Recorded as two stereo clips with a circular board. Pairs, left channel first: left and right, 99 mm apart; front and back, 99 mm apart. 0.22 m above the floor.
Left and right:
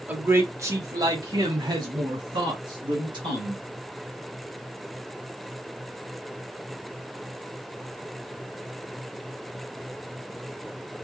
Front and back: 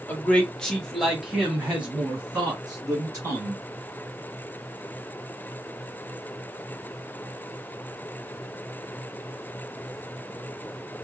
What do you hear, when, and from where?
0.1 s a man speaking: 45° right, 1.2 m; by 3.6 s 110° right, 3 m